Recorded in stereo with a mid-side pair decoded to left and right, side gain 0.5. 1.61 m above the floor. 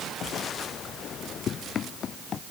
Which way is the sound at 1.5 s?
55° left.